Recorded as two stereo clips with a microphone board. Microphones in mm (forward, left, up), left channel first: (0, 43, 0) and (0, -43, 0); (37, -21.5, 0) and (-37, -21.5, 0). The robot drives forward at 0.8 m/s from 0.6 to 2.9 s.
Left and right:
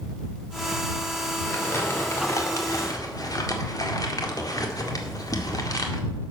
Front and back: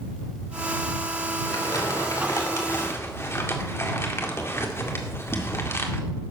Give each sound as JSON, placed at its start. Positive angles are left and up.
{"t": 1.4, "sound": "crumpling", "azimuth_deg": 30, "distance_m": 2.5}